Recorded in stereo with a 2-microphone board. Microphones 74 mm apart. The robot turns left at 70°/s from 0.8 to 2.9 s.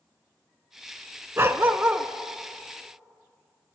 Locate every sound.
1.4 s a dog barking: 105° right, 0.5 m; by 2.1 s 155° right, 0.5 m